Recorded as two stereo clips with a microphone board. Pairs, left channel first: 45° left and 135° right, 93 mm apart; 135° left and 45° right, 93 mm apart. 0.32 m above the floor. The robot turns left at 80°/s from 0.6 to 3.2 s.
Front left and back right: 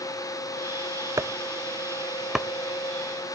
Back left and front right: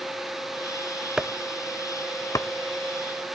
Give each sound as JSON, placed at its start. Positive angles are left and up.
{"t": 1.2, "sound": "chopping", "azimuth_deg": -125, "distance_m": 0.6}